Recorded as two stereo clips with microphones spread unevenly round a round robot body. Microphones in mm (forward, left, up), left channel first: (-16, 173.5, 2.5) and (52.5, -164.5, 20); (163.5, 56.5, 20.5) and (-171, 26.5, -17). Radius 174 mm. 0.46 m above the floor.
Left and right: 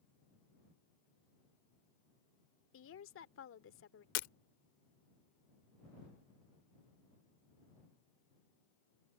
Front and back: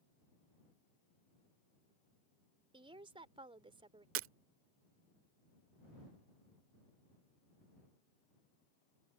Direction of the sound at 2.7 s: 125° left.